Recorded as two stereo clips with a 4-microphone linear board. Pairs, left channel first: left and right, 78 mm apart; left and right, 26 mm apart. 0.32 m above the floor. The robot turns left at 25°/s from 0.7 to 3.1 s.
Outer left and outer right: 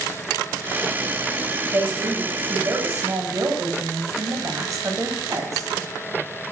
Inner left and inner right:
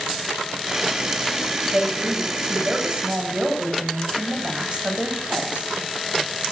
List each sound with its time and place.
1.7 s a woman speaking: 45° right, 1.7 m; by 5.7 s 80° right, 1.7 m